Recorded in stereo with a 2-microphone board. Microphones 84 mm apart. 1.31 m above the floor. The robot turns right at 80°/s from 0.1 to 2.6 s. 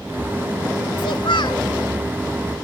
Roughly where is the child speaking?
Left.